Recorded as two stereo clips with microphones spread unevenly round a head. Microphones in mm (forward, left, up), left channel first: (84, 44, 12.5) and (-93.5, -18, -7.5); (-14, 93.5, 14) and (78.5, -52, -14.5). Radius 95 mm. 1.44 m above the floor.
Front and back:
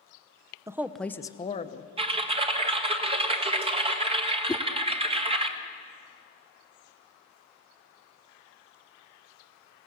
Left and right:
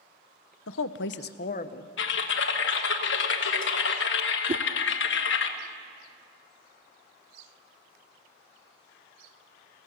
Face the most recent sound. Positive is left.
turn(degrees=-35)